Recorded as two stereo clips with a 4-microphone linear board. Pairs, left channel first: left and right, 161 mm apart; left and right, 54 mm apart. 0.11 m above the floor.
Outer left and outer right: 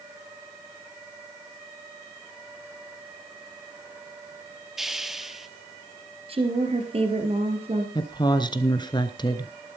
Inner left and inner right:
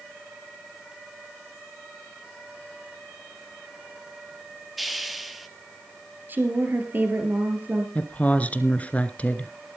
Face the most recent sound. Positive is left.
turn(degrees=25)  # may be behind; listen again after turning